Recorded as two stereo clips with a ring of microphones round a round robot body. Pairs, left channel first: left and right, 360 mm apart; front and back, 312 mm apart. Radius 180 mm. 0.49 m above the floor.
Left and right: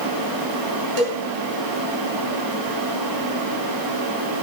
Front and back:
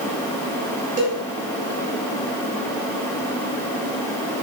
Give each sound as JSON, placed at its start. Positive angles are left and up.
{"t": 1.0, "sound": "a cowbell", "azimuth_deg": -100, "distance_m": 2.5}